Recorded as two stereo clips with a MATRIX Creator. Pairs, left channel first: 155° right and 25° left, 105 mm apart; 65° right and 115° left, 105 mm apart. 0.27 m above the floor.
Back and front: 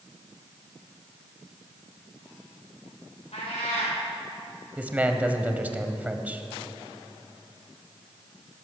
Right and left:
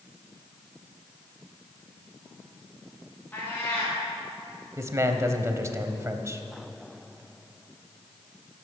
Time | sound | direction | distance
3.3 | a cat meowing | 140° right | 5 m
4.8 | a man speaking | 85° left | 1.0 m